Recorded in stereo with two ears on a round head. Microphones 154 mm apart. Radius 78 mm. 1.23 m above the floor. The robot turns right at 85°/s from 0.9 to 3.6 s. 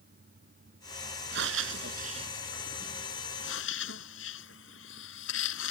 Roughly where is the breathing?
Right.